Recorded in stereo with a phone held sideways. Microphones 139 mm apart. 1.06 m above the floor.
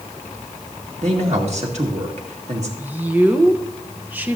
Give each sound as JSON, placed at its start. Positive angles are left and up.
{"t": 1.0, "sound": "a man speaking", "side_deg": -55, "distance_m": 2.0}
{"t": 2.8, "sound": "a woman speaking", "side_deg": -15, "distance_m": 0.9}